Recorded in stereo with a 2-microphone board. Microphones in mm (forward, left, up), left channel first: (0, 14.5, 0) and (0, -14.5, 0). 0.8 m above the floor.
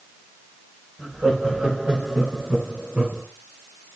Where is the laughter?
55° right (ahead or behind), 4 m; by 3.2 s 40° right (ahead or behind), 5 m.